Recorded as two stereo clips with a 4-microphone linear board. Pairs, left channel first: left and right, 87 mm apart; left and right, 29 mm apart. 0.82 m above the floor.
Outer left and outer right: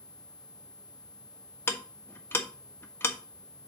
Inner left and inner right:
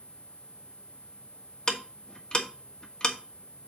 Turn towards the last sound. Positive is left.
turn(degrees=25)  # may be behind; listen again after turning